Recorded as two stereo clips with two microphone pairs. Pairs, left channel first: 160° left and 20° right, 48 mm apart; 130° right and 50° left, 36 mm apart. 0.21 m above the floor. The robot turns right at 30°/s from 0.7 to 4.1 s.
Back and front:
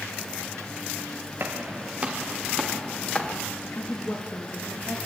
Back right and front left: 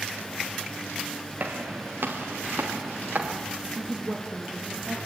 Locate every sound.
1.4 s footsteps: 20° left, 4 m; by 3.4 s 90° left, 5.5 m
3.8 s a woman speaking: 95° left, 5.5 m; by 5.0 s 105° left, 5.5 m